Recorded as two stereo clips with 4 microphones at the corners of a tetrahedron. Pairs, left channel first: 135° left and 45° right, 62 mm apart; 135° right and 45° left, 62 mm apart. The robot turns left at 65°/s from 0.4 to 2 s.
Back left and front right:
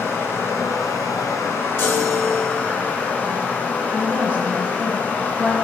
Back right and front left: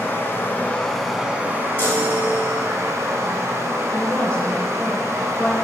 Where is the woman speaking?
80° right, 1.4 m.